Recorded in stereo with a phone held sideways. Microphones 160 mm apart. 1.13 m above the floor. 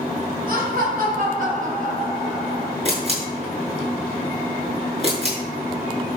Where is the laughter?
65° right (ahead or behind), 5.5 m; by 2.8 s 50° right (ahead or behind), 5 m.